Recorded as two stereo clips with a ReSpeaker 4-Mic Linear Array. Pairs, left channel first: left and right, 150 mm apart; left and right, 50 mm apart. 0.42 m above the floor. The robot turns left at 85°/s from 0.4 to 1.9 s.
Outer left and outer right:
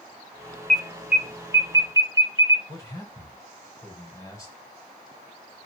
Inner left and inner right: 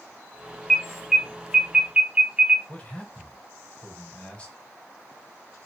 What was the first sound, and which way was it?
An alarm, 5° left (ahead or behind).